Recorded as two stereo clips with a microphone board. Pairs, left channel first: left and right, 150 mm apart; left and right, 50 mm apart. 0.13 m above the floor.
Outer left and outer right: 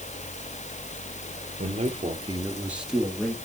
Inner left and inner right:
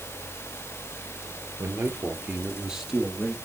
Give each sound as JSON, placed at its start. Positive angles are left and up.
{"t": 1.6, "sound": "a man speaking", "side_deg": -45, "distance_m": 2.5}